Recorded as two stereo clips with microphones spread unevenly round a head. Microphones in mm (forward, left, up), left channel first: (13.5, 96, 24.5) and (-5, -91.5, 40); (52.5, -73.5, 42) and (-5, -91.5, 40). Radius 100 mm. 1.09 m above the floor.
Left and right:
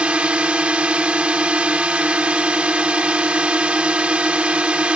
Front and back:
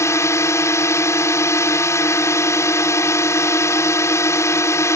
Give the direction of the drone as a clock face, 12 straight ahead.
12 o'clock.